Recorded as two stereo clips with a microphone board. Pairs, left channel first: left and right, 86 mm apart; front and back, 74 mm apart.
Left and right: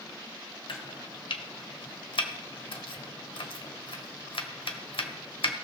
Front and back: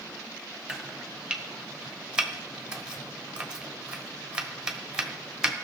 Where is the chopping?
105° left, 1.2 m.